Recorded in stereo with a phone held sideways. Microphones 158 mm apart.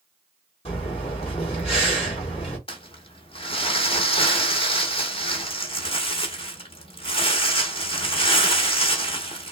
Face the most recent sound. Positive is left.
turn(degrees=35)  # may be behind; listen again after turning